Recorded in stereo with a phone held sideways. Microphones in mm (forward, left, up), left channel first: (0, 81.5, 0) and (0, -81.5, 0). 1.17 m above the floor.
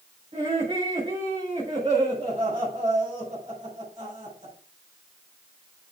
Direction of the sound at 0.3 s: 35° right (ahead or behind).